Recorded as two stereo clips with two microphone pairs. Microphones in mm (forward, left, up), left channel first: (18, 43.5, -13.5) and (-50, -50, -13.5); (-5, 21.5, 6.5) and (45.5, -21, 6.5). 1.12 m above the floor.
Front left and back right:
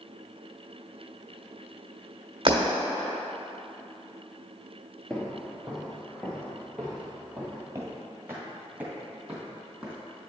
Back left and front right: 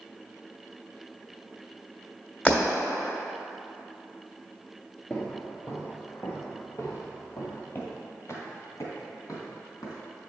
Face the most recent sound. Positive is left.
turn(degrees=145)